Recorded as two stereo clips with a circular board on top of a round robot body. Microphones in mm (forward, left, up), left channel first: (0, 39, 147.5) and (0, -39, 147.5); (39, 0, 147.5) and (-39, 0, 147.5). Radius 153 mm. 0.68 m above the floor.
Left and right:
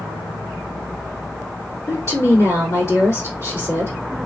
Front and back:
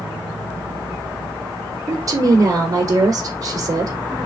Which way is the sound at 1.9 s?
140° left.